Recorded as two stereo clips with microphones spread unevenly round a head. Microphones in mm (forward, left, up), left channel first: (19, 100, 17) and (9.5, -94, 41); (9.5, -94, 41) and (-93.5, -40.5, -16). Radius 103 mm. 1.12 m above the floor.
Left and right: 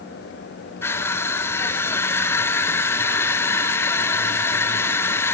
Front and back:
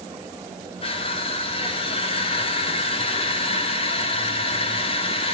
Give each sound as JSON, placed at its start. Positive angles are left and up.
{"t": 0.8, "sound": "crushing", "azimuth_deg": 35, "distance_m": 0.6}